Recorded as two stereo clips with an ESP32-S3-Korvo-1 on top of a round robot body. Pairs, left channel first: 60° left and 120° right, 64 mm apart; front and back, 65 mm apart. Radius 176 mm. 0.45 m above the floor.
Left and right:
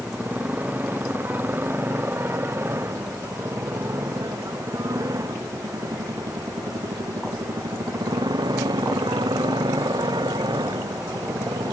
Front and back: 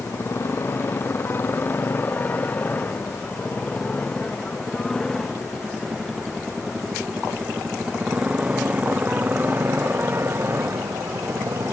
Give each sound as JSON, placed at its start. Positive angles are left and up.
{"t": 0.0, "sound": "a motorcycle", "azimuth_deg": -55}